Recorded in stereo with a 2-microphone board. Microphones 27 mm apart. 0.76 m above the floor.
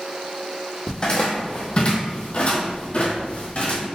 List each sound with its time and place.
0.9 s footsteps: 30° left (ahead or behind), 1.4 m; by 3.9 s 55° left (ahead or behind), 1.5 m